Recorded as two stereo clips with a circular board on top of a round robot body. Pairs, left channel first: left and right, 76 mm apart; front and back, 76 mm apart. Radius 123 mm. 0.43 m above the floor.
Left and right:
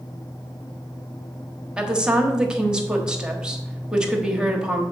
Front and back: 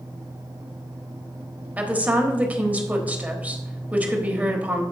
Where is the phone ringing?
No phone ringing in this recording.